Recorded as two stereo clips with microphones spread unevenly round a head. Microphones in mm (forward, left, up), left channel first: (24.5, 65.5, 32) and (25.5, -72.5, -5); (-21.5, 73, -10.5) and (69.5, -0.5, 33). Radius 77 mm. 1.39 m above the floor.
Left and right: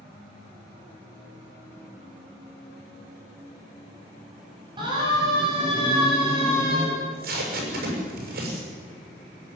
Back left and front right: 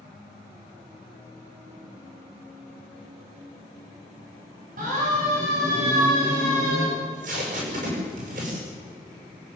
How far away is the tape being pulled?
About 7 m.